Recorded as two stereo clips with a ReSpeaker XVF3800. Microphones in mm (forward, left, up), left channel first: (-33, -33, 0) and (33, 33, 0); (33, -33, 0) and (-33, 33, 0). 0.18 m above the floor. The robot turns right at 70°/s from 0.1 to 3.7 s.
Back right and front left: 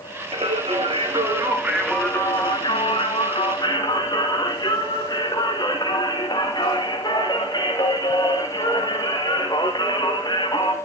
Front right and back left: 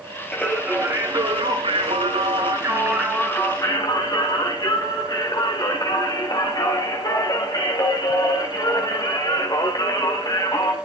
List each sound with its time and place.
0.3 s singing: 35° left, 7.5 m; by 10.7 s 90° right, 7.5 m